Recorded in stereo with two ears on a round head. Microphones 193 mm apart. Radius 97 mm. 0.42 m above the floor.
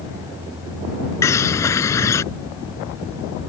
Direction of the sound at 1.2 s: 15° left (ahead or behind).